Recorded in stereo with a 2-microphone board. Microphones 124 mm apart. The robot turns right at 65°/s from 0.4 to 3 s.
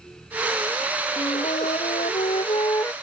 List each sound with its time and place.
1.2 s a flute: 45° left; by 2.9 s 160° left